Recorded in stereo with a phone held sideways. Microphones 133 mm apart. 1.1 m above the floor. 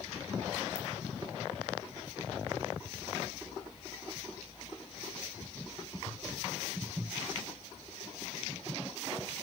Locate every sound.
0.8 s a ringtone: 55° right (ahead or behind), 7.5 m